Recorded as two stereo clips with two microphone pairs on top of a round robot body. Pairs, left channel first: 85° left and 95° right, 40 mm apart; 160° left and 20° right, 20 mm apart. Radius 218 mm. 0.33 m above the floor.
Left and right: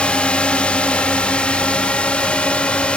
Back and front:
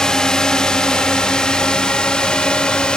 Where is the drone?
130° left; by 3.0 s 135° left.